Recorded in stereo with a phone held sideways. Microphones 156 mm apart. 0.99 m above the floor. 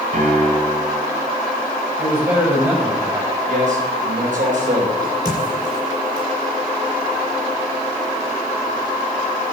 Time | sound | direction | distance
0.1 | a piano | 55° right (ahead or behind) | 5 m
2.0 | a man speaking | 15° right (ahead or behind) | 5 m
3.5 | a man speaking | 60° right (ahead or behind) | 4 m
5.0 | a crack | 25° right (ahead or behind) | 6 m